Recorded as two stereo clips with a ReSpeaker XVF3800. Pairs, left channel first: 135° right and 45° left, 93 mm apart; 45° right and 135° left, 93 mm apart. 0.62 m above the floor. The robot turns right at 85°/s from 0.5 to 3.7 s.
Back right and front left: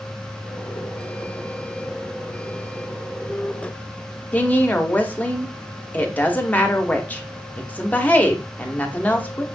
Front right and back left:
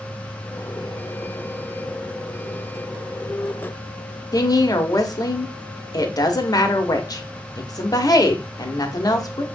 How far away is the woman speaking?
About 0.8 m.